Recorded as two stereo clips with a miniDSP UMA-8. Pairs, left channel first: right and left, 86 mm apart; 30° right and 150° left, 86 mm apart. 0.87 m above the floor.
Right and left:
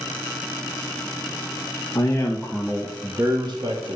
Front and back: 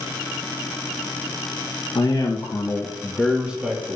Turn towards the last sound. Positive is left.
turn(degrees=80)